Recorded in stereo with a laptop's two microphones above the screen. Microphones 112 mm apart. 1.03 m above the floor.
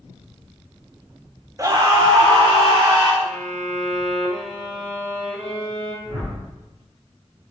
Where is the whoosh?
65° right (ahead or behind), 2.5 m.